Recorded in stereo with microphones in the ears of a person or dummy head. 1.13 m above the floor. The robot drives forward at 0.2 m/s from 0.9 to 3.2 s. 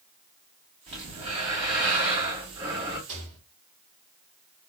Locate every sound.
0.9 s breathing: 25° right (ahead or behind), 2.5 m; by 3.0 s 20° right (ahead or behind), 2.5 m
3.1 s a rattle: 75° right (ahead or behind), 1.8 m